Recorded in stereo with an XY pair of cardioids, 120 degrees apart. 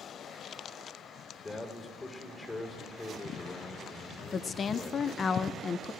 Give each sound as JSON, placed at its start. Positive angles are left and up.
{"t": 1.4, "sound": "a man speaking", "azimuth_deg": 25, "distance_m": 3.5}
{"t": 4.3, "sound": "a woman speaking", "azimuth_deg": 35, "distance_m": 0.6}